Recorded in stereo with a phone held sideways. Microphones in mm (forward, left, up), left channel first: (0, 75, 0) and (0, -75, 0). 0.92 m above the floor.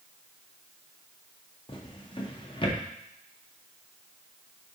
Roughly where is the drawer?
Left.